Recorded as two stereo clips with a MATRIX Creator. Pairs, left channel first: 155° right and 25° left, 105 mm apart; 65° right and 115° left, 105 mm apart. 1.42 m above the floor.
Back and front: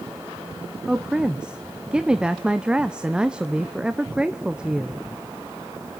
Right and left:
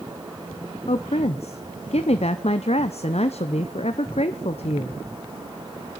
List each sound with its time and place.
0.9 s a woman speaking: 60° right, 0.7 m